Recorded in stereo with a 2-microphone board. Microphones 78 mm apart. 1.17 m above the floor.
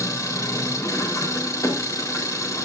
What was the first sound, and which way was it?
An engine running, 45° left (ahead or behind).